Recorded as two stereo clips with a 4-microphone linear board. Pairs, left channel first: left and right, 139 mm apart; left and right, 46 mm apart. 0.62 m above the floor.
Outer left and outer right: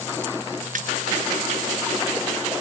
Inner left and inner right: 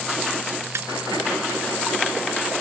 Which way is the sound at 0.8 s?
75° right (ahead or behind).